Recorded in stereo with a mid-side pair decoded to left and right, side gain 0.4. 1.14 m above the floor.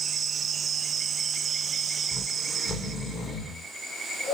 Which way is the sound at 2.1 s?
65° left.